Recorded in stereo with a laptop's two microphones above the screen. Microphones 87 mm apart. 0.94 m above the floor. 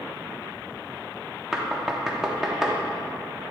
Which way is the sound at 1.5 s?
5° right (ahead or behind).